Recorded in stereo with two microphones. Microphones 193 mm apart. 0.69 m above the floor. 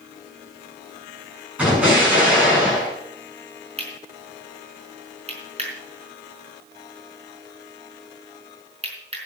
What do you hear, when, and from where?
1.6 s an explosion: 5° right (ahead or behind), 8 m
3.8 s cutlery clinking: 35° right (ahead or behind), 4.5 m